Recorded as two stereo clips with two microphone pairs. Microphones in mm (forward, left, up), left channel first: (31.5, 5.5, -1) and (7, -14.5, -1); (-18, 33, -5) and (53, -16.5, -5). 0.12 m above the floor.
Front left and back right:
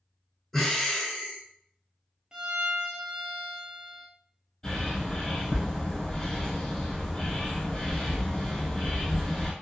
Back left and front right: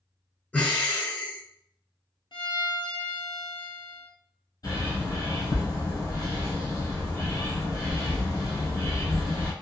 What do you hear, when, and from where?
0.5 s breathing: 105° left, 0.9 m
2.3 s a violin: 155° left, 0.6 m
4.6 s a bird: 105° left, 1.6 m